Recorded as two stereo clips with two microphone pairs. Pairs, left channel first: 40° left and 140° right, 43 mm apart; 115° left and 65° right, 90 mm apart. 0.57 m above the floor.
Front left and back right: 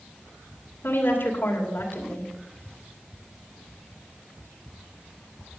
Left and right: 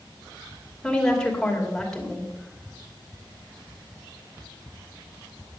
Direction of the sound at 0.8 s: 30° left.